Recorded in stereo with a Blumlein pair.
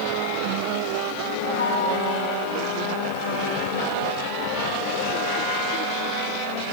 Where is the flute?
70° left, 4 m.